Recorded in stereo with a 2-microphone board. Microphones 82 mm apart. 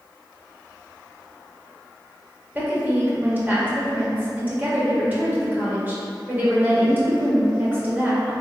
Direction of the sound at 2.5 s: 20° right (ahead or behind).